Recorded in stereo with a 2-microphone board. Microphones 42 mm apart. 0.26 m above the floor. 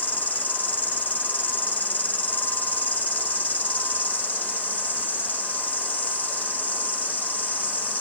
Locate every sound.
0.0 s an insect: 40° left (ahead or behind), 1.0 m